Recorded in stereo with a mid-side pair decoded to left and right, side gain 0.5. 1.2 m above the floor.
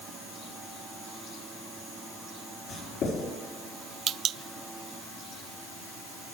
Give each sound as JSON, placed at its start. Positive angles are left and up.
{"t": 2.7, "sound": "writing", "azimuth_deg": 70, "distance_m": 4.5}